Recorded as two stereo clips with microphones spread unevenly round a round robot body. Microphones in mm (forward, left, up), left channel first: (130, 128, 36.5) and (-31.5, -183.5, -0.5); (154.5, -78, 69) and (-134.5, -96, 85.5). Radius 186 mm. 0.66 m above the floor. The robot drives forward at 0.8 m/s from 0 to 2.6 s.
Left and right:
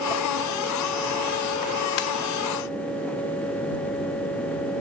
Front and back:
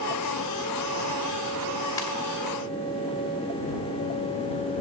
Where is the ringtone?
85° left, 1.7 m.